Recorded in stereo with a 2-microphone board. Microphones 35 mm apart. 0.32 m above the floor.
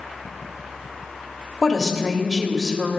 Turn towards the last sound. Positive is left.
turn(degrees=10)  # may be behind; listen again after turning